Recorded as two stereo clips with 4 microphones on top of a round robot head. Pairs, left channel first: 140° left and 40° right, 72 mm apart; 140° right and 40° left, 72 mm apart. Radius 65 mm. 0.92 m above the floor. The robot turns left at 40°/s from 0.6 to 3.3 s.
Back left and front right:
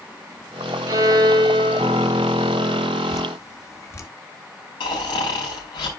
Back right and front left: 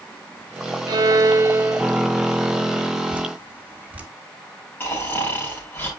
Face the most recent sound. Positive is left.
turn(degrees=155)